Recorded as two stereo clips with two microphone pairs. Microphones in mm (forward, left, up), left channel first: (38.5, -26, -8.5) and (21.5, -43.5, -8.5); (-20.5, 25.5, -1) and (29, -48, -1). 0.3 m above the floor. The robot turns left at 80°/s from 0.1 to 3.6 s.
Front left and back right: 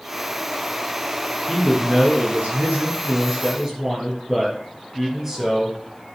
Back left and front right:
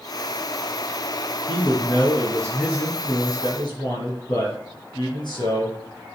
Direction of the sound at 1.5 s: 35° right.